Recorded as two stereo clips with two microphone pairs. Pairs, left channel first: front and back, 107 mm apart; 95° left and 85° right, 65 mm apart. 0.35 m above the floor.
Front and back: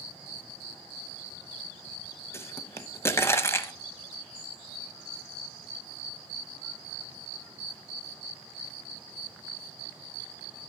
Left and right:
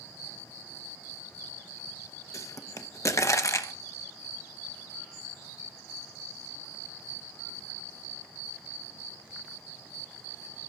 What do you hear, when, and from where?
2.3 s a pop: 65° left, 0.9 m